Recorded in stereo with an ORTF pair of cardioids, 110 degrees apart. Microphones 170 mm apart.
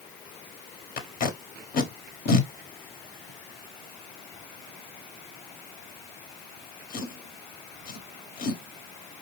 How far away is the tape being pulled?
About 1.1 m.